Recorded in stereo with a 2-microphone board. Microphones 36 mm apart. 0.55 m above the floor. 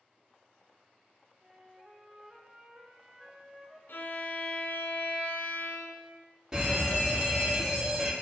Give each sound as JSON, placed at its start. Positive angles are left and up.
{"t": 1.4, "sound": "a flute", "side_deg": -5, "distance_m": 1.2}
{"t": 3.9, "sound": "a violin", "side_deg": 75, "distance_m": 1.2}
{"t": 6.5, "sound": "a fire alarm", "side_deg": -20, "distance_m": 1.6}